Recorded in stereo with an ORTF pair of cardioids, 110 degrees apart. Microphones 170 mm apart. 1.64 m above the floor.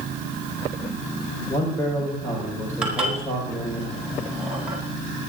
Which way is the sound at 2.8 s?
5° right.